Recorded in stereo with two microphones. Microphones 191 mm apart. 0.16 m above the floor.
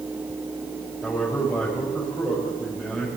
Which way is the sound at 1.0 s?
5° left (ahead or behind).